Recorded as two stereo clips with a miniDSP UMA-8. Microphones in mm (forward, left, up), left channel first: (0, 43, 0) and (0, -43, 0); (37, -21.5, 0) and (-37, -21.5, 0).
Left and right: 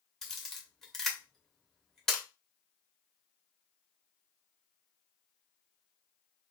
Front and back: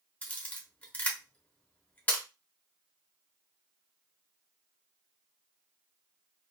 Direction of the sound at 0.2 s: 15° left.